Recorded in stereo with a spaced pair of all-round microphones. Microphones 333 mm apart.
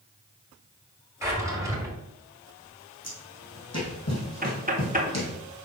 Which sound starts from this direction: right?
Knocking, at 4.4 s.